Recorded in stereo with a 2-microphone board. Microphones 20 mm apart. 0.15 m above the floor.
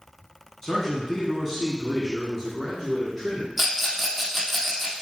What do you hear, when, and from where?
0.6 s a man speaking: 15° left (ahead or behind), 1.1 m; by 3.5 s 5° right (ahead or behind), 1.7 m
3.6 s a rattle: centre (ahead or behind), 1.1 m